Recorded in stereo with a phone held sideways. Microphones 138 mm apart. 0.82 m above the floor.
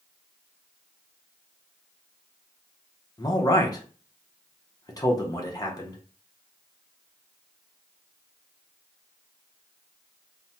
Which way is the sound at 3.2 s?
25° left (ahead or behind).